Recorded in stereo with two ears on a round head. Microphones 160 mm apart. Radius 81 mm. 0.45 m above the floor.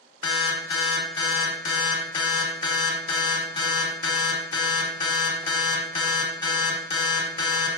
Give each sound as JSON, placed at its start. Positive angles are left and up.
{"t": 0.2, "sound": "an alarm", "side_deg": 30, "distance_m": 1.0}